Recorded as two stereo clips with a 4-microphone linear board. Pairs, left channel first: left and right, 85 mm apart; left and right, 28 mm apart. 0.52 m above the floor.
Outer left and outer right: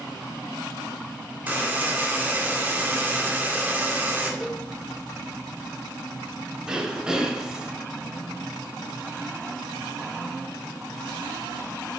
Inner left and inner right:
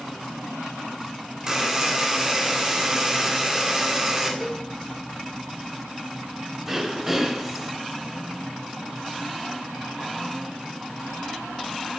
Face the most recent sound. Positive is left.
turn(degrees=-10)  # may be behind; listen again after turning